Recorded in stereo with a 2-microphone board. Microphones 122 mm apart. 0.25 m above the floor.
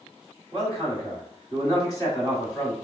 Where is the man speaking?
30° left (ahead or behind), 1.8 m.